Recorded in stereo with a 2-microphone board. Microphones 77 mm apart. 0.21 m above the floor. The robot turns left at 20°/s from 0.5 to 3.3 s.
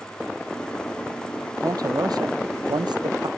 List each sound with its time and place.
1.6 s a man speaking: 55° right; by 3.3 s 90° right